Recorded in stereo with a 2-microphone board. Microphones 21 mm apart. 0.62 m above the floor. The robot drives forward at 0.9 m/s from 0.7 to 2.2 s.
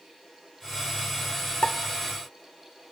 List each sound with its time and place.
1.6 s a pop: 75° left (ahead or behind), 0.9 m; by 1.8 s 70° left (ahead or behind), 1.0 m